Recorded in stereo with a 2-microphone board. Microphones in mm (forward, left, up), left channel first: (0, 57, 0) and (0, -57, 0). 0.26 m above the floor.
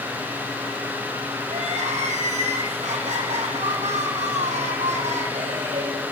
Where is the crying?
85° right, 5.5 m.